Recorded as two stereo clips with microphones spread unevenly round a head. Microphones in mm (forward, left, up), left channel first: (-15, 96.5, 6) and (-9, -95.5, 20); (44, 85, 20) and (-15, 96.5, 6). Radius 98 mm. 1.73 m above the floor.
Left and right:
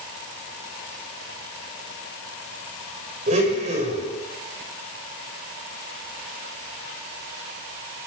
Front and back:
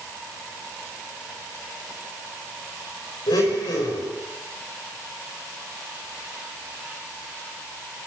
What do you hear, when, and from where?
3.3 s a blender: 30° right, 6.5 m